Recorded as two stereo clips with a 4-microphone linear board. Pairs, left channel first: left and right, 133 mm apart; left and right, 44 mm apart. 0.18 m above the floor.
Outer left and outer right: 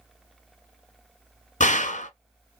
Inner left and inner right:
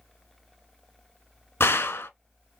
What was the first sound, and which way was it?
A gunshot, 65° left (ahead or behind).